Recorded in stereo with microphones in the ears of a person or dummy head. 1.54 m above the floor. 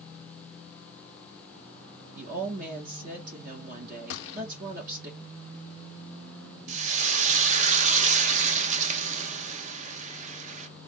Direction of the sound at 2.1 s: 45° right (ahead or behind).